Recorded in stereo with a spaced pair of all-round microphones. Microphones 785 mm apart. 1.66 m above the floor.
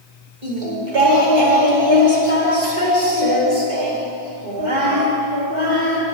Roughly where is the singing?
Right.